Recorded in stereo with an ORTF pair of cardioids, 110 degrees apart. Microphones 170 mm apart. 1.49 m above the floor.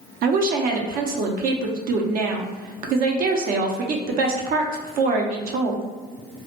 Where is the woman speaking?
60° right, 0.5 m.